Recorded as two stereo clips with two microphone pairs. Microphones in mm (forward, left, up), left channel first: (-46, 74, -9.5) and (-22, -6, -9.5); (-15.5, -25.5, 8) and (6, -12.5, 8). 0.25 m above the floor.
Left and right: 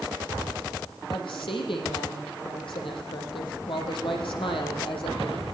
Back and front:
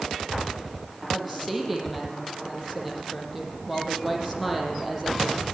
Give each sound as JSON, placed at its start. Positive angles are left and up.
{"t": 1.1, "sound": "a woman speaking", "azimuth_deg": 115, "distance_m": 7.5}